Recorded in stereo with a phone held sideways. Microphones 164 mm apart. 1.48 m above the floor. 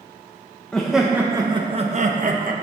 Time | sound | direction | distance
0.7 | laughter | 5° left (ahead or behind) | 1.0 m